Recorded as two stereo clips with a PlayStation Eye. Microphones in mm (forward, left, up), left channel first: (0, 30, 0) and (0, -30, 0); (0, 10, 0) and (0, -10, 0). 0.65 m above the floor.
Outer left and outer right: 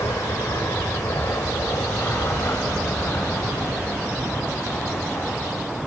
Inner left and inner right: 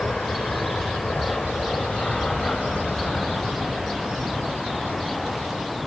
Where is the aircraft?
60° left (ahead or behind); by 5.9 s 30° left (ahead or behind).